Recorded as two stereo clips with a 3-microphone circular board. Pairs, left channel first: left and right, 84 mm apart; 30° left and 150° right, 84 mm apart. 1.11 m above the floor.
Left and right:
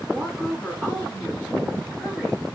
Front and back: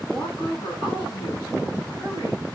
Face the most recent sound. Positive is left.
turn(degrees=5)